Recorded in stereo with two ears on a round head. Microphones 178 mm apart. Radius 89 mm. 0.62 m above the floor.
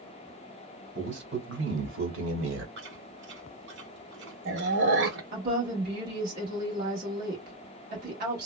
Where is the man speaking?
60° right (ahead or behind), 1.8 m; by 2.7 s 70° right (ahead or behind), 1.8 m.